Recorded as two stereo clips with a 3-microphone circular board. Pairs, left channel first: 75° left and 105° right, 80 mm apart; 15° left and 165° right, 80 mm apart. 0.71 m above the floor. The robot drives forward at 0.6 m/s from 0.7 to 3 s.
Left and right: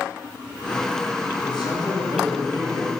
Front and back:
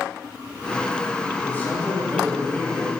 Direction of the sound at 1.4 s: 80° left.